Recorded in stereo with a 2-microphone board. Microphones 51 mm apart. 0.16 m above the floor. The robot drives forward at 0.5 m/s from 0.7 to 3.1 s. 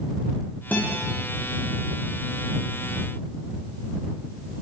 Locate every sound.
0.7 s a guitar: 30° left (ahead or behind), 8 m